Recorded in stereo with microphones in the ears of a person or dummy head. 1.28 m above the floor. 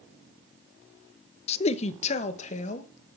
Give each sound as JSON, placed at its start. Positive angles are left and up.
{"t": 1.5, "sound": "a man speaking", "side_deg": 35, "distance_m": 0.7}